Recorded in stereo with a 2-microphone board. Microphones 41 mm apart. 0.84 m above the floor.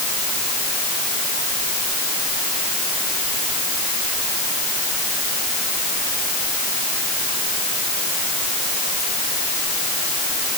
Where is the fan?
No fan in this recording.